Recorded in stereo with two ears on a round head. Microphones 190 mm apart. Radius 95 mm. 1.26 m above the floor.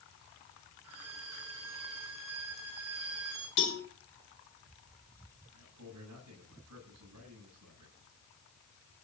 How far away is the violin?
About 8 m.